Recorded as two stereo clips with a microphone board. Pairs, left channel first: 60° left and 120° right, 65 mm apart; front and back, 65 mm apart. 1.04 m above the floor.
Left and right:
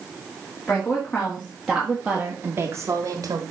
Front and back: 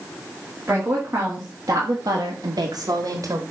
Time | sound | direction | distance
0.7 | a woman speaking | 125° left | 2 m